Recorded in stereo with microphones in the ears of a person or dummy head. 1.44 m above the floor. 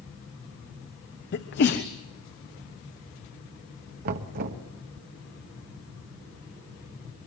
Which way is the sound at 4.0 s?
50° right (ahead or behind).